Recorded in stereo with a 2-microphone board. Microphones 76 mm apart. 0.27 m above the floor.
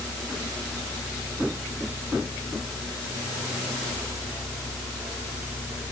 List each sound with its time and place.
Only background noise.